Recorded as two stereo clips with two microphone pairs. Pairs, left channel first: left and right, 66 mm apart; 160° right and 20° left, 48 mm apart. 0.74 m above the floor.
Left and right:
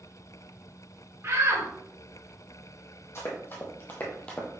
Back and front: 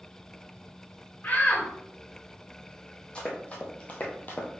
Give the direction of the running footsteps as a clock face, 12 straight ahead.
7 o'clock.